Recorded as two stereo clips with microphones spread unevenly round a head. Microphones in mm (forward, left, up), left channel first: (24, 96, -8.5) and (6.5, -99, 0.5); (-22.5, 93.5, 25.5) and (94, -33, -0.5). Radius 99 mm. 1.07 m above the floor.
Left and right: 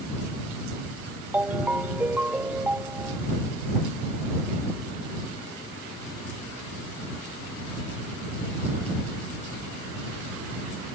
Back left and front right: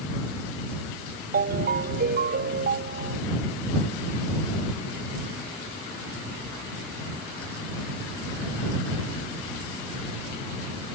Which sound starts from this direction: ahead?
A ringtone, at 1.3 s.